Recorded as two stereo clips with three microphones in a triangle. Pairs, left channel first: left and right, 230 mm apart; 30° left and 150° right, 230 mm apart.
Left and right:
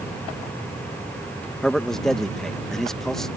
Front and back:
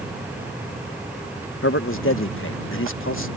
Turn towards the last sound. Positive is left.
turn(degrees=0)